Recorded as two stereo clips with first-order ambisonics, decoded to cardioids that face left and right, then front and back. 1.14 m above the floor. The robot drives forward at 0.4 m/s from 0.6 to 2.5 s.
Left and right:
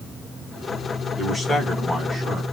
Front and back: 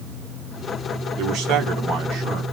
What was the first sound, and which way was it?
A man speaking, 165° left.